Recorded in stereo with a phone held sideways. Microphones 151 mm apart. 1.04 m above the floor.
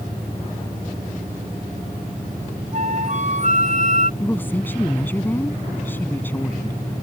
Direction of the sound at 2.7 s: 50° right (ahead or behind).